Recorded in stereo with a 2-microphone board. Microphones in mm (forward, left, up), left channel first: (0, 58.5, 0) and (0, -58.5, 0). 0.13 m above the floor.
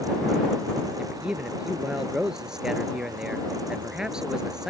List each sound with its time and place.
1.0 s a man speaking: 5° right (ahead or behind)